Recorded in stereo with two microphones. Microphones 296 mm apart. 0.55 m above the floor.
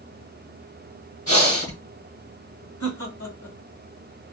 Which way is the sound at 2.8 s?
60° left (ahead or behind).